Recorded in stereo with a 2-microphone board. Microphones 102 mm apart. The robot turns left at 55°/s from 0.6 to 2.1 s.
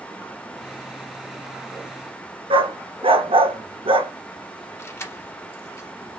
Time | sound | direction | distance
2.5 | a dog barking | 65° right (ahead or behind) | 0.7 m
4.8 | keys jangling | 25° left (ahead or behind) | 1.0 m